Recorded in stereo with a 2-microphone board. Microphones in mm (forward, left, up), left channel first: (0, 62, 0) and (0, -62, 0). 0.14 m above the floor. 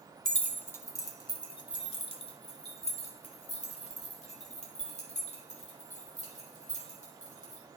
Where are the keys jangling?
5° left (ahead or behind), 0.8 m; by 7.6 s 80° left, 4 m.